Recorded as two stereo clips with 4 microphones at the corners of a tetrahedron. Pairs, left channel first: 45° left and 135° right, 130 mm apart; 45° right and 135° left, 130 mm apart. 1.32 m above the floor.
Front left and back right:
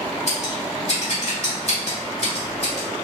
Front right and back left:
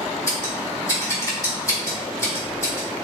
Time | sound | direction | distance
0.3 | scissors | 15° left | 1.8 m